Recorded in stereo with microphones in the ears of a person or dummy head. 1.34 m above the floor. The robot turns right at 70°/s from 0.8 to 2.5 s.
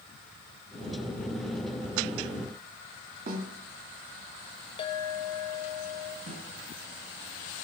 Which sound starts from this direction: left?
A clink, at 4.8 s.